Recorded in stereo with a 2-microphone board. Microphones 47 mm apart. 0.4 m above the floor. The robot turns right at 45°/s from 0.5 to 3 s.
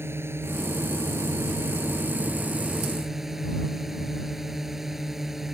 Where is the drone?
120° right; by 5.5 s 5° right.